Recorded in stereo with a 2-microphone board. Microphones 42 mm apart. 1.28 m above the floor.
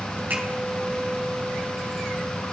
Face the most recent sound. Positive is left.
turn(degrees=-50)  # may be behind; listen again after turning